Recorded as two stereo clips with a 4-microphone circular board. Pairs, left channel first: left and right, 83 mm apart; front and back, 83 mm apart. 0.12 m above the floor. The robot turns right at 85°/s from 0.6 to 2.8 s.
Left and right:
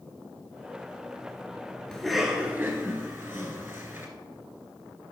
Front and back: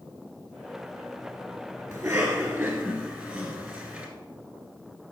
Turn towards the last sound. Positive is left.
turn(degrees=-120)